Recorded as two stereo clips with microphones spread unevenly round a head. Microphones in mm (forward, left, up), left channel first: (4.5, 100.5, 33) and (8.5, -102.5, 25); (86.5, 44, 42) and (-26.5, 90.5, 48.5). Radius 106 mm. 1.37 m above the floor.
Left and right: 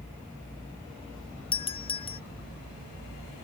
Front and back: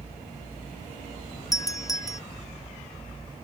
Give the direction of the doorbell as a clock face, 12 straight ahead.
11 o'clock.